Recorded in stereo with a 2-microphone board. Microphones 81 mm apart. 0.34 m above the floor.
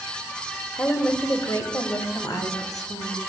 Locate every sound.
0.8 s a woman speaking: 20° left (ahead or behind), 1.0 m; by 3.2 s 55° left (ahead or behind), 2.5 m